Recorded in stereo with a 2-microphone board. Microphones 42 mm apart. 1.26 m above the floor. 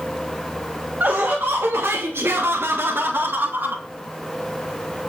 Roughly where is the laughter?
Right.